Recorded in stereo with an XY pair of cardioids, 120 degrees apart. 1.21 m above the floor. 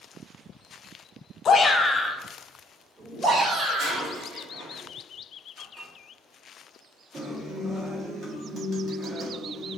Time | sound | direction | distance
1.4 | a shout | 45° left | 0.7 m
3.8 | breaking glass | 60° right | 1.4 m
5.6 | dishes clattering | 35° right | 1.3 m
7.1 | a guitar | 40° right | 1.4 m